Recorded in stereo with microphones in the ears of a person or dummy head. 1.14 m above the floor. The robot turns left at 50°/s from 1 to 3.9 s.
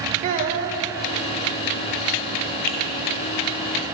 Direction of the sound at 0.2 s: 35° right (ahead or behind).